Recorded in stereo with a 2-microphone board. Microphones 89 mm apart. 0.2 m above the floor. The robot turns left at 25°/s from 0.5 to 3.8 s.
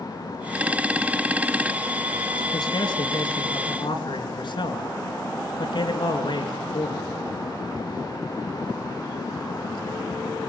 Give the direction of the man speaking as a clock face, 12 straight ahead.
8 o'clock.